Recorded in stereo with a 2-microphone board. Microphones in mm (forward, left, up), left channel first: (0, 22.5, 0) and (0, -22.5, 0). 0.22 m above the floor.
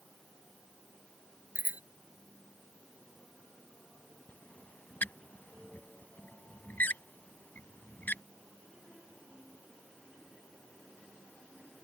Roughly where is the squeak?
Left.